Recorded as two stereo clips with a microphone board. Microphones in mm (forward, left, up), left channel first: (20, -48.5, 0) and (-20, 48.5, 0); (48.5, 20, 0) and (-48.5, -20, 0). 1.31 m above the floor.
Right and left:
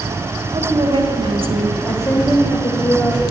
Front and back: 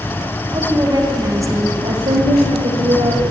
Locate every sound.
0.5 s a woman speaking: 155° left, 1.4 m; by 1.7 s 135° left, 0.8 m
1.8 s a woman speaking: 130° right, 1.0 m